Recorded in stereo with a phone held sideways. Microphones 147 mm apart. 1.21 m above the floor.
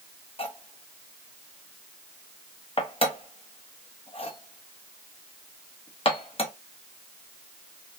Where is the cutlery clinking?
40° left (ahead or behind), 0.7 m.